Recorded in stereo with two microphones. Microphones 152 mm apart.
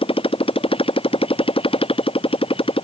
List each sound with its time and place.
0.0 s a motorcycle: 35° left (ahead or behind)